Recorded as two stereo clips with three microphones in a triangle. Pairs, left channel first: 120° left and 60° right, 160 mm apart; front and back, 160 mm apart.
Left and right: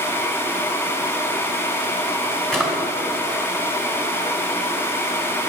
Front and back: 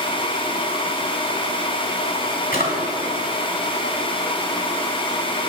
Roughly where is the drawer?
Ahead left.